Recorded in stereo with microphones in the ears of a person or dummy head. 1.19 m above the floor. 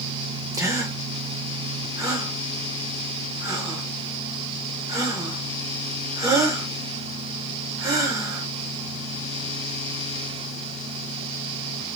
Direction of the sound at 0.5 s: 15° right (ahead or behind).